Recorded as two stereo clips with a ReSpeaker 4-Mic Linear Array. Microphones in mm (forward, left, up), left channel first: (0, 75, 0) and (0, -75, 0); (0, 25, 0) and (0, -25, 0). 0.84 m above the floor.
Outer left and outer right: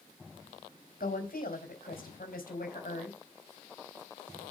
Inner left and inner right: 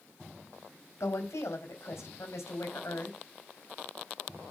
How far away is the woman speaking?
About 4 m.